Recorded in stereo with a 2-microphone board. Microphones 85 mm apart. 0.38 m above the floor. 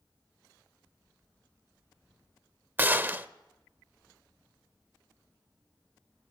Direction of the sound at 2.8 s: 25° right (ahead or behind).